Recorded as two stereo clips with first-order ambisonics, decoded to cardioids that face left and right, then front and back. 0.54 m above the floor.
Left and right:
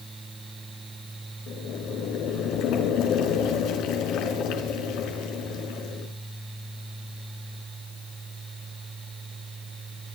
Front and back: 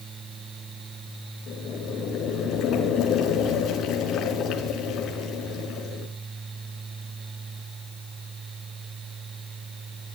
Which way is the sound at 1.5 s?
55° left.